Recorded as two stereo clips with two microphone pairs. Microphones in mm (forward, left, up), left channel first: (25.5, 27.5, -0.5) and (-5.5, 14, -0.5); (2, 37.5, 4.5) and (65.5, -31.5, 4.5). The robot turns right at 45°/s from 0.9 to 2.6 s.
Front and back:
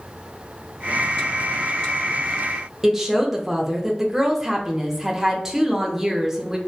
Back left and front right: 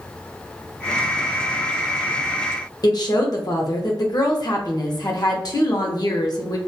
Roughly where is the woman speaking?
Behind left.